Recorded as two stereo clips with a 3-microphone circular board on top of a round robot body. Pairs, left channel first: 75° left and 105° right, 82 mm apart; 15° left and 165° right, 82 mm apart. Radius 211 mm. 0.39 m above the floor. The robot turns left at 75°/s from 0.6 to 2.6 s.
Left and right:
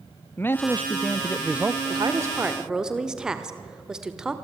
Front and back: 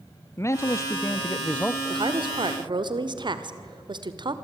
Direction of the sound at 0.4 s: 30° left.